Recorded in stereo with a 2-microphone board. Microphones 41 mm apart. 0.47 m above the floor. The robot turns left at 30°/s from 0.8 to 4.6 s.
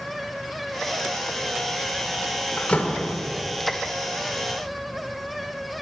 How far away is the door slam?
About 0.8 m.